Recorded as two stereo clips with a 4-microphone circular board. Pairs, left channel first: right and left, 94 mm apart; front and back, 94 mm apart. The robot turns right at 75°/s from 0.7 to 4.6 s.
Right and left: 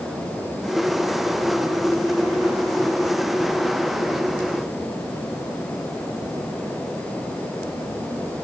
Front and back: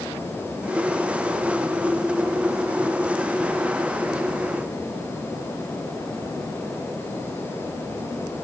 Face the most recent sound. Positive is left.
No sound to turn to.